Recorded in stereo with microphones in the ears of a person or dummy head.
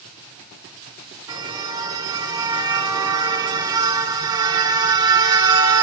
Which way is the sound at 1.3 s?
20° right (ahead or behind).